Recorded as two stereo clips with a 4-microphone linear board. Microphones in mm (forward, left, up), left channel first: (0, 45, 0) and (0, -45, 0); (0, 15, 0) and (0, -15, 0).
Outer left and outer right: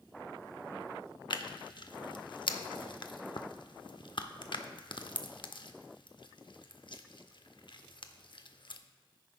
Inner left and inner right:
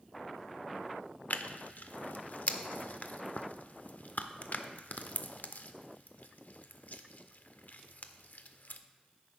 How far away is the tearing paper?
About 0.5 m.